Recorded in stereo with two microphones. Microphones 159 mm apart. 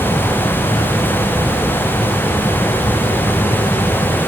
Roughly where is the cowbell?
I don't hear a cowbell.